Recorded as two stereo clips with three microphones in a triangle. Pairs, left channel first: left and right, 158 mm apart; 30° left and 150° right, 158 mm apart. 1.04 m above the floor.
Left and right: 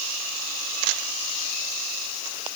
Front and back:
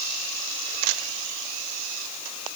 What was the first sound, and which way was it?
Only background noise.